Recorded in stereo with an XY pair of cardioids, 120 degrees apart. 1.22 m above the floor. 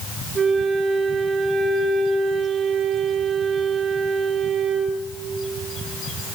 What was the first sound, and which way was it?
A flute, 25° right.